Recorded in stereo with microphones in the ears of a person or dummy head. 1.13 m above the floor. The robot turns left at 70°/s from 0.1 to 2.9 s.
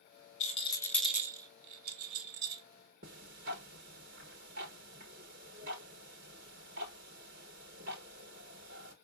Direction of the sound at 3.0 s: 65° right (ahead or behind).